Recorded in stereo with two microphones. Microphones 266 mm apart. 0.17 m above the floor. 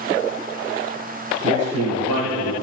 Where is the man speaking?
60° right (ahead or behind), 5 m; by 2.5 s 55° right (ahead or behind), 6 m.